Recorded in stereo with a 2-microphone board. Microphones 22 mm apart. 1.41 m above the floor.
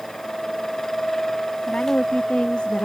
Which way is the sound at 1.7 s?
85° left.